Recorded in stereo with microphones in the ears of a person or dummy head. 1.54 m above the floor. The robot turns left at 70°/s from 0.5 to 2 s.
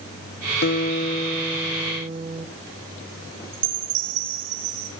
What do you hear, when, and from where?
0.6 s a guitar: 60° left, 1.6 m; by 2.5 s 35° right, 1.6 m
3.5 s a chime: 70° right (ahead or behind), 6 m